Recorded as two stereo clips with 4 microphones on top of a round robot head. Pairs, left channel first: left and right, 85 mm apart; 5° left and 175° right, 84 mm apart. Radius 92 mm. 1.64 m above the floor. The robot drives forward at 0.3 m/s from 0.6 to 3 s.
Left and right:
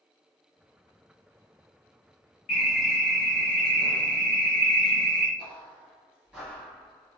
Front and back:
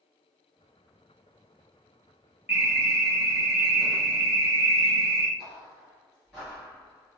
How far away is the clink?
No clink in this recording.